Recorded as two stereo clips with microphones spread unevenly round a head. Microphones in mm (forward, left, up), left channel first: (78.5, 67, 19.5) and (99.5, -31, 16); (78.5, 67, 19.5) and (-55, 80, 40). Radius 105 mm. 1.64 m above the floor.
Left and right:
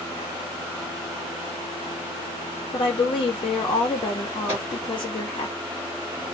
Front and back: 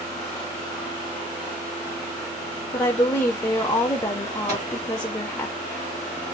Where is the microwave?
140° right, 1.7 m.